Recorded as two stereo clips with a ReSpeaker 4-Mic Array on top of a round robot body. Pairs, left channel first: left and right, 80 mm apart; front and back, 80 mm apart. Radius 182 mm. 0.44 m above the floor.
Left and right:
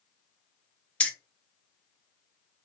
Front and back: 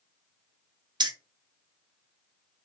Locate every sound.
1.0 s keys jangling: 165° left, 0.6 m